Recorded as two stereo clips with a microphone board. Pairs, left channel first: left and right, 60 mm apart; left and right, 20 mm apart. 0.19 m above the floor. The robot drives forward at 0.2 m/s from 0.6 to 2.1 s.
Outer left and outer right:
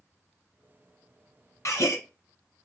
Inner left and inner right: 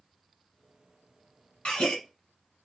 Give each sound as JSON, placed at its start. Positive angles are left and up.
{"t": 1.6, "sound": "a gasp", "side_deg": 60, "distance_m": 1.1}